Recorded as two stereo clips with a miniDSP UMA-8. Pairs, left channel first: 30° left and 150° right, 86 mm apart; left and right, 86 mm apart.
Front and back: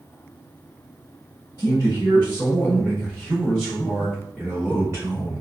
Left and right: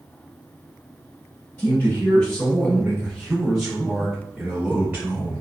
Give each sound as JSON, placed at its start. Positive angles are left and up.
{"t": 1.6, "sound": "a man speaking", "azimuth_deg": 35, "distance_m": 1.6}